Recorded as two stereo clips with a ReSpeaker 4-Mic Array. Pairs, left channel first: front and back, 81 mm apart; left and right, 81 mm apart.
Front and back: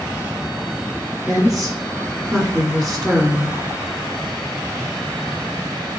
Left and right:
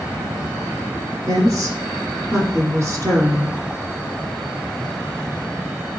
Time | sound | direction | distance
1.3 | a woman speaking | 85° right | 1.4 m